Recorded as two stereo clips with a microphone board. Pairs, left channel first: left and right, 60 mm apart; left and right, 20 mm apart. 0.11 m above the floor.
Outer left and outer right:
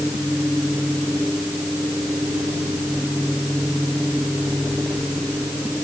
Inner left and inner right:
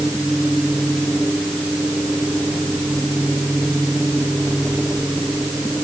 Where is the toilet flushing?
No toilet flushing in this recording.